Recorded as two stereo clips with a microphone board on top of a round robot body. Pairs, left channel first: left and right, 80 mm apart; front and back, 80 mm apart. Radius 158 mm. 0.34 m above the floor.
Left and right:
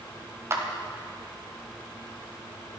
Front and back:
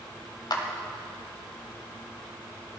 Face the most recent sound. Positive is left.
turn(degrees=-35)